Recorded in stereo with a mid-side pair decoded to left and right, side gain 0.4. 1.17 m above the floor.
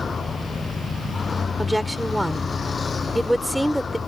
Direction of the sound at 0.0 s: 40° left.